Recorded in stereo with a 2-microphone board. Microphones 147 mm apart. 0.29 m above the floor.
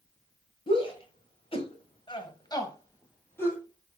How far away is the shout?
About 1.8 m.